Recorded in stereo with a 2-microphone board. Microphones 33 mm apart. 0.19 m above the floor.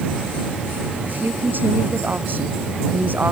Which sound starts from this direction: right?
A woman speaking, at 1.0 s.